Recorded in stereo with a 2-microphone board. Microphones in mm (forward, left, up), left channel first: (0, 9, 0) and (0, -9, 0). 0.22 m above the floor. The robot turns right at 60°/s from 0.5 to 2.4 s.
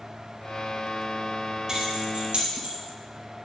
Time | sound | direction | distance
1.7 | keys jangling | 35° right (ahead or behind) | 3.5 m